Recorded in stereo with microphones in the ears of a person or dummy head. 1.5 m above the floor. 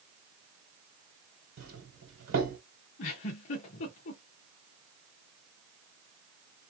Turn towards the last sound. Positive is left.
turn(degrees=40)  # may be behind; listen again after turning